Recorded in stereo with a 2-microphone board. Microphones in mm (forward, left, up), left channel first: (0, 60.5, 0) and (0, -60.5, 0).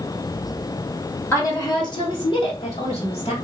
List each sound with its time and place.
1.3 s a woman speaking: 20° left (ahead or behind), 0.9 m; by 3.3 s 60° left (ahead or behind), 1.6 m